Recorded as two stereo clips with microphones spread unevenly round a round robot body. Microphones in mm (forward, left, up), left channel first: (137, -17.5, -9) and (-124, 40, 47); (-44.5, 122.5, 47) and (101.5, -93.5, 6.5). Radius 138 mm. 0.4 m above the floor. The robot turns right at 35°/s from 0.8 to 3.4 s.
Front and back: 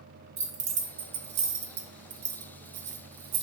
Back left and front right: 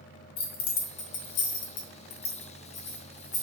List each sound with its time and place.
0.4 s keys jangling: 100° left, 0.7 m; by 3.4 s 170° right, 0.7 m